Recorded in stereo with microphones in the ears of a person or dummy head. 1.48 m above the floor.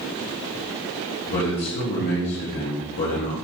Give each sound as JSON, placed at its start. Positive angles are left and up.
{"t": 1.3, "sound": "a man speaking", "side_deg": 50, "distance_m": 1.2}